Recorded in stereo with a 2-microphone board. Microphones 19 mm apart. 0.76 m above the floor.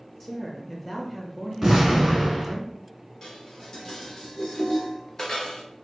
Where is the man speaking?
10° left (ahead or behind), 1.1 m.